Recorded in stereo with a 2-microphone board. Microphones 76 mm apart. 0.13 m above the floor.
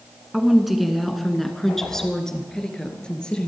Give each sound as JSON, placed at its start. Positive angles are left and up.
{"t": 0.3, "sound": "a woman speaking", "side_deg": -5, "distance_m": 1.7}